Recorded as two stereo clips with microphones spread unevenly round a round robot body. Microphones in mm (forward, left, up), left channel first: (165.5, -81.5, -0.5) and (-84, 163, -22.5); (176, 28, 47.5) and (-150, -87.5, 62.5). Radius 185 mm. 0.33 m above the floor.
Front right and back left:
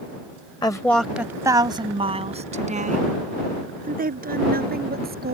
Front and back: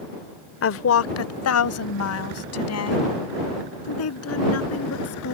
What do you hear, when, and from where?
0.6 s a woman speaking: 30° left; by 5.3 s 70° left